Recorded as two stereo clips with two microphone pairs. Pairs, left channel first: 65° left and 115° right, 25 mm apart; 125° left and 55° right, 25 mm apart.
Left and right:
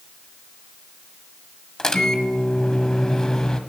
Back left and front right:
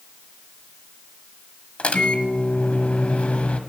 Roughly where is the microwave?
Behind left.